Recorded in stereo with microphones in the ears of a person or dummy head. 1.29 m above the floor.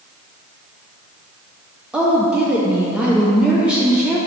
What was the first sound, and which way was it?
A woman speaking, 5° right (ahead or behind).